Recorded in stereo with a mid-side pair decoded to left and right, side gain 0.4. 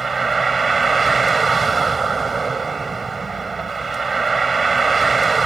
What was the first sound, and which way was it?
A vehicle, 35° right.